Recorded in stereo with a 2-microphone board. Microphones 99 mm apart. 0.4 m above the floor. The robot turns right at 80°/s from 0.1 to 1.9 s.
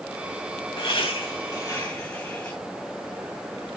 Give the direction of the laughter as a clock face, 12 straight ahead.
10 o'clock.